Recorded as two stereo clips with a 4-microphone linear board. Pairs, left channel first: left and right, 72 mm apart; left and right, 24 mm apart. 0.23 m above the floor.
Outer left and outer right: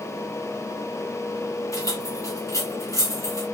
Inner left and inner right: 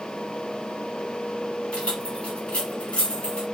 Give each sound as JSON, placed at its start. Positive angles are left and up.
{"t": 1.7, "sound": "keys jangling", "side_deg": 50, "distance_m": 1.6}